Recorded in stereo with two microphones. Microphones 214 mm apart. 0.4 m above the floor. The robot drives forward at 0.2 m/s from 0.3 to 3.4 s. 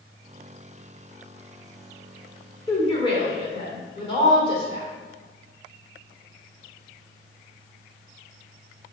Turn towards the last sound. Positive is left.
turn(degrees=25)  # may be behind; listen again after turning